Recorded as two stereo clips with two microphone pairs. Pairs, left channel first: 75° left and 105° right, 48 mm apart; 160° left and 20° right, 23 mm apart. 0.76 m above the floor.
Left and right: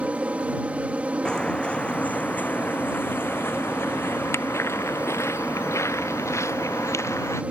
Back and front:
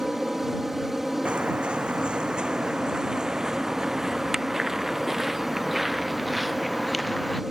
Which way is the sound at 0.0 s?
90° right.